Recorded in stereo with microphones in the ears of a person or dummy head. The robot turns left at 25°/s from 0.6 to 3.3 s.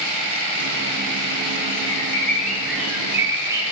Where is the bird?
20° left, 2.0 m; by 3.6 s 20° right, 2.0 m.